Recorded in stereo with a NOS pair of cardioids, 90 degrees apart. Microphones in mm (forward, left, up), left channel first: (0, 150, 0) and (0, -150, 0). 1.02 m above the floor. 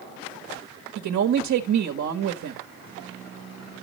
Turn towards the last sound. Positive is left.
turn(degrees=-70)